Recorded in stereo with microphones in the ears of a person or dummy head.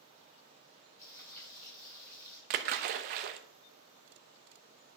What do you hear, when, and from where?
1.0 s frying: 15° left (ahead or behind), 5.5 m
2.5 s a splash: 35° right (ahead or behind), 0.7 m